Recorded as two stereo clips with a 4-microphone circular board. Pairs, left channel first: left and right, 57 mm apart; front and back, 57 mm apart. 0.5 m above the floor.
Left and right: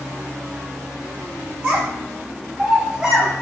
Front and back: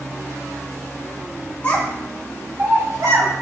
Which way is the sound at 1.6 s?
45° right.